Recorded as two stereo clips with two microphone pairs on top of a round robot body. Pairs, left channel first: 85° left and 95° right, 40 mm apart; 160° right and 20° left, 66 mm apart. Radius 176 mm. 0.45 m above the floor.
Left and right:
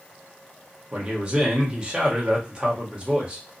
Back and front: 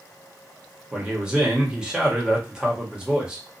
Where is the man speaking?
50° right, 1.5 m.